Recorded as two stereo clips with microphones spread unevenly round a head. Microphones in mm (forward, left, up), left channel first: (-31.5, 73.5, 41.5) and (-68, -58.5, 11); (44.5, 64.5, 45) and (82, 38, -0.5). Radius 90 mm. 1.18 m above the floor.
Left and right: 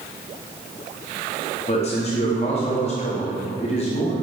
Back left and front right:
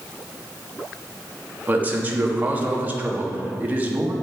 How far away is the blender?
No blender in this recording.